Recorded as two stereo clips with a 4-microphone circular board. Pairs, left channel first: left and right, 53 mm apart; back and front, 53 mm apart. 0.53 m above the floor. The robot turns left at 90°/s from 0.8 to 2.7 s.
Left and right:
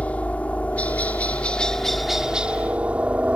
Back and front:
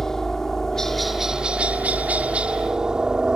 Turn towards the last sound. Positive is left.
turn(degrees=-60)